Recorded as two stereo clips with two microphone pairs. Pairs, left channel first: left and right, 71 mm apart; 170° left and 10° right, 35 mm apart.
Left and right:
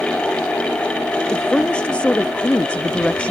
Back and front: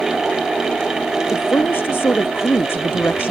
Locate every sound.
1.3 s a woman speaking: 165° left; by 3.3 s 160° left